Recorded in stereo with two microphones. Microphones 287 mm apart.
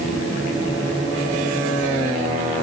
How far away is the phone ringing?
No phone ringing in this recording.